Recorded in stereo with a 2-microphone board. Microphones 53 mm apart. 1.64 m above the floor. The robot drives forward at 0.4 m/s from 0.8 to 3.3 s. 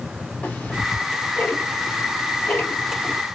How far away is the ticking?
About 1.0 m.